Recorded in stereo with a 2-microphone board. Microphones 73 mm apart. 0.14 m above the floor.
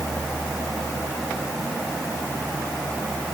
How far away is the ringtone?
No ringtone in this recording.